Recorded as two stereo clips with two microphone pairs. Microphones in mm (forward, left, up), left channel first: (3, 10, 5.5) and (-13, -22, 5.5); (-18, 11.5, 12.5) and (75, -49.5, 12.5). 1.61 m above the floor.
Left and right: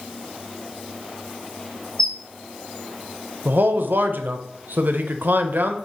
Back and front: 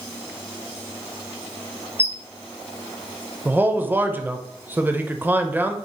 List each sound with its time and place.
2.0 s a squeak: 90° left, 0.5 m
3.5 s a man speaking: 100° right, 0.5 m